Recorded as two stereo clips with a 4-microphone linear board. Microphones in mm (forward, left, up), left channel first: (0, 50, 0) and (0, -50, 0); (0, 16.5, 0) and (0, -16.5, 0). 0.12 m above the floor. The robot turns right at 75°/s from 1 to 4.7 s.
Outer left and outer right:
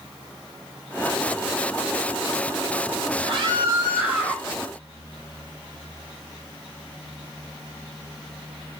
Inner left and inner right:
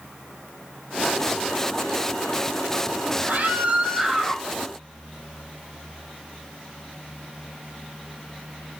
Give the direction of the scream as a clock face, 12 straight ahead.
3 o'clock.